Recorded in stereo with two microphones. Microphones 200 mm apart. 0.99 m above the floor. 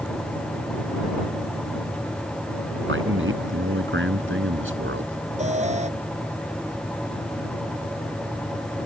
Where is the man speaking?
80° right.